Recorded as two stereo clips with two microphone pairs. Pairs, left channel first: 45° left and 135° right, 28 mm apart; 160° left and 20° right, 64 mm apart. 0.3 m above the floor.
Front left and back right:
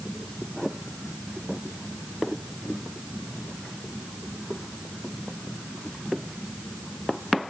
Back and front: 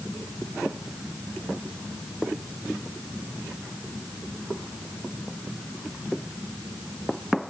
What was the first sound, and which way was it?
Only background noise.